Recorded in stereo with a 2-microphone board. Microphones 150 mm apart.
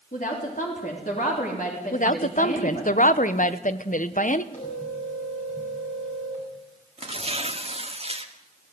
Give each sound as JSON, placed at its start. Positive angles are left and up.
{"t": 0.1, "sound": "a woman speaking", "side_deg": 60, "distance_m": 4.0}
{"t": 1.9, "sound": "a woman speaking", "side_deg": 60, "distance_m": 1.1}
{"t": 4.5, "sound": "a phone ringing", "side_deg": 55, "distance_m": 8.0}
{"t": 7.0, "sound": "tearing paper", "side_deg": -40, "distance_m": 1.7}